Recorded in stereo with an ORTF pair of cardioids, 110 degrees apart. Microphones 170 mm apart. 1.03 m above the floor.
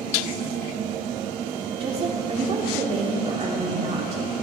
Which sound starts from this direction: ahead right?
A woman speaking, at 1.8 s.